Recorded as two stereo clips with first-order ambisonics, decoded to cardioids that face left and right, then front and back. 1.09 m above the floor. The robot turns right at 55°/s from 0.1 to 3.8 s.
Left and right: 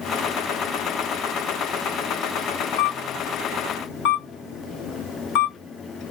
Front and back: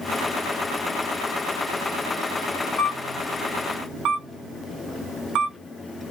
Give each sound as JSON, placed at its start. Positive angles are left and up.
{"t": 2.8, "sound": "a camera shutter", "azimuth_deg": 75, "distance_m": 1.2}